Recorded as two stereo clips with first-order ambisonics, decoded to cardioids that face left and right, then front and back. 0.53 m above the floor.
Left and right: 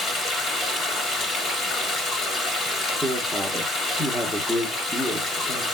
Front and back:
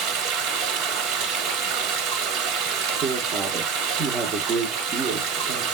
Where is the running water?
155° left, 1.1 m.